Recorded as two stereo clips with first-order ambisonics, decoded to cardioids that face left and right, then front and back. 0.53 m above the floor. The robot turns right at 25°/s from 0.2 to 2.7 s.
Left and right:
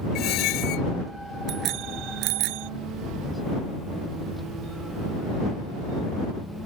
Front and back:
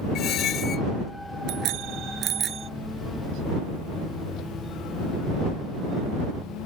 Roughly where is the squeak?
Ahead left.